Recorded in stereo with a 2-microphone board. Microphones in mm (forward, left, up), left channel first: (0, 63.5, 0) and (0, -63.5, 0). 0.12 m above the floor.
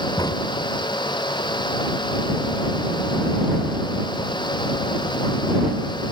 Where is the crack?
30° left (ahead or behind).